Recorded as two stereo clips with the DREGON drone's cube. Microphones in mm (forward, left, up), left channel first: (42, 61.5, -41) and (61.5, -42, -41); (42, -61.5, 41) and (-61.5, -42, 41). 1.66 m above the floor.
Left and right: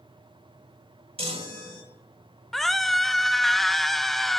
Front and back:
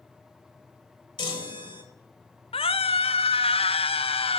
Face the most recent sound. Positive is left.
turn(degrees=10)